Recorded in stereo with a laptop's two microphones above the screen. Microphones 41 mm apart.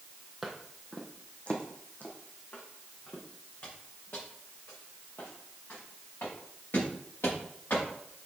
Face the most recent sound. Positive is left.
turn(degrees=80)